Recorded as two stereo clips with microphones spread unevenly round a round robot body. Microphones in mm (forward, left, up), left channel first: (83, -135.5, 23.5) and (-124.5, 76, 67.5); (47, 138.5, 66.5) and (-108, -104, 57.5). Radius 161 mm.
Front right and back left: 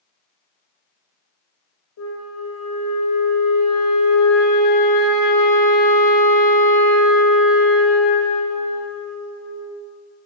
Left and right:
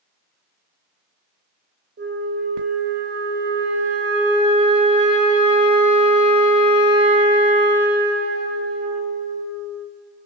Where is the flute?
70° right, 3.5 m.